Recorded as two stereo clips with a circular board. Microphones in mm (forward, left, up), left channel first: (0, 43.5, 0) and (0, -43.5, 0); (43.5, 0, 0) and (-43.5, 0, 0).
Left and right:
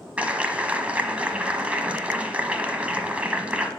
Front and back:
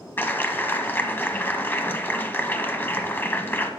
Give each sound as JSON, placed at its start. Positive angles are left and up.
{"t": 0.2, "sound": "a clap", "azimuth_deg": -35, "distance_m": 1.1}